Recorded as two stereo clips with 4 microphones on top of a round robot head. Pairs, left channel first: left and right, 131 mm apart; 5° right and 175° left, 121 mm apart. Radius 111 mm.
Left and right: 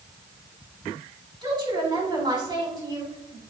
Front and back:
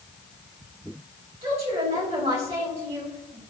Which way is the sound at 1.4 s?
145° right.